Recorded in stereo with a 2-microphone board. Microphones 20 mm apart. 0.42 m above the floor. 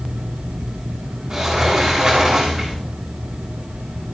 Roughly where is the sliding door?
Centre.